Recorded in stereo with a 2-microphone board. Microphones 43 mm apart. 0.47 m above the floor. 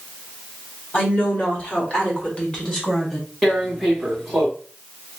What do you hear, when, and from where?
0.9 s a woman speaking: 55° left (ahead or behind), 2 m; by 3.3 s 10° left (ahead or behind), 1.4 m
3.4 s tearing paper: centre (ahead or behind), 1.9 m